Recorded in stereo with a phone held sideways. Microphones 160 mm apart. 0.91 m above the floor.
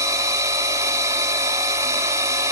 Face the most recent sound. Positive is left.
turn(degrees=-20)  # may be behind; listen again after turning